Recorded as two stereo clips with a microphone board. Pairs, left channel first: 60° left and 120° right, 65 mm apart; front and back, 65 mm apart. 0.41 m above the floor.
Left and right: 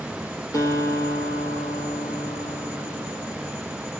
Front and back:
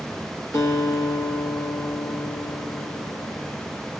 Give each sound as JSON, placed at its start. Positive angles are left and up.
{"t": 0.5, "sound": "a guitar", "azimuth_deg": 35, "distance_m": 5.0}